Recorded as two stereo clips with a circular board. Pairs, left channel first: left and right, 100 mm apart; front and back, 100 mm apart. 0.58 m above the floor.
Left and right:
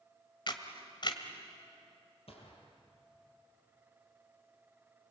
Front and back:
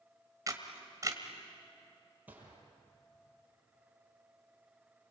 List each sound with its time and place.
0.5 s a camera shutter: 125° left, 1.9 m
2.3 s a gunshot: 105° left, 5.5 m